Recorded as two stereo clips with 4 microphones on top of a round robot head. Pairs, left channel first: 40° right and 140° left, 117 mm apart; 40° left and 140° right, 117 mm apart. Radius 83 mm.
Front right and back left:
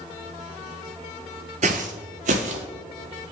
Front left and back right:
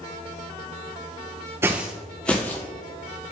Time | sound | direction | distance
1.6 | footsteps | 155° left | 0.5 m